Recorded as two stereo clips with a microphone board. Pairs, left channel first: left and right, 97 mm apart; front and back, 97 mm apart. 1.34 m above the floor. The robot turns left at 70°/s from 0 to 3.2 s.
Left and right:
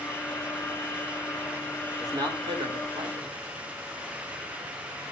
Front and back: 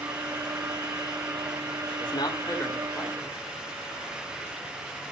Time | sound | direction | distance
2.0 | a man speaking | 30° right | 3 m